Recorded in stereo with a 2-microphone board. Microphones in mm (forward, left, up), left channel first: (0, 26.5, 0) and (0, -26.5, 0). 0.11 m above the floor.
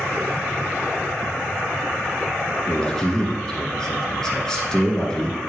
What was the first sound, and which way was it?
A man speaking, 10° left (ahead or behind).